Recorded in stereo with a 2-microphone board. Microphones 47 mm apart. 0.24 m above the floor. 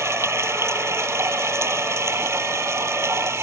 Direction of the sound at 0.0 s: 75° right (ahead or behind).